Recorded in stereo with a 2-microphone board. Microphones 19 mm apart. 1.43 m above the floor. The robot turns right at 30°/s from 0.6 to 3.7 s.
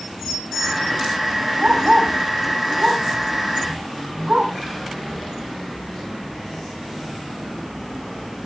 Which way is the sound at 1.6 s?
55° right (ahead or behind).